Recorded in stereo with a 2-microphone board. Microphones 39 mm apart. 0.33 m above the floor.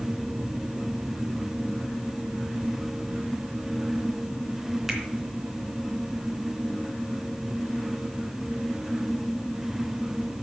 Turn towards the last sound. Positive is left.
turn(degrees=-10)  # may be behind; listen again after turning